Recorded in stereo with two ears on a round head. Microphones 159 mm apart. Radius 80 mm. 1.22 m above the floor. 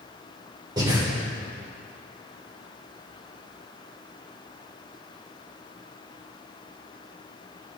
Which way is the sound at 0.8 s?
20° right (ahead or behind).